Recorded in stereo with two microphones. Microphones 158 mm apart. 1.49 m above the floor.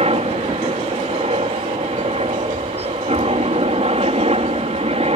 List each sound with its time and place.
0.0 s a helicopter: 40° right (ahead or behind)